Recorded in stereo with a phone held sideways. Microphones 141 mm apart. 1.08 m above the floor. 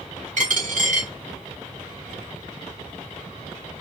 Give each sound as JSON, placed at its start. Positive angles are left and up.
{"t": 0.4, "sound": "a dropped coin", "side_deg": -65, "distance_m": 1.4}